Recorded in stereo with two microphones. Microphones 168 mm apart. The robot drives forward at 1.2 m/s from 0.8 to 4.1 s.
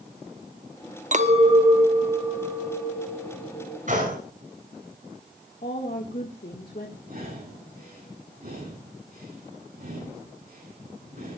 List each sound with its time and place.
1.1 s a clink: 50° right (ahead or behind), 0.9 m; by 3.8 s 10° right (ahead or behind), 4 m
3.9 s a gunshot: 50° right (ahead or behind), 7 m; by 4.2 s 55° right (ahead or behind), 7 m
5.6 s a woman speaking: 65° left (ahead or behind), 1.8 m
7.1 s breathing: 60° right (ahead or behind), 9 m